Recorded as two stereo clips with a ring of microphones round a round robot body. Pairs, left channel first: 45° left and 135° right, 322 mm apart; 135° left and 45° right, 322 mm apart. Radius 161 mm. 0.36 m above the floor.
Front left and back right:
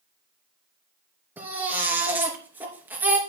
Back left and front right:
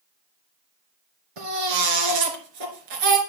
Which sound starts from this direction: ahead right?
A baby crying, at 1.4 s.